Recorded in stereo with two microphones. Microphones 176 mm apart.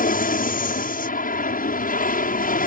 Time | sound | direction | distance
0.0 | an aircraft | 50° left (ahead or behind) | ?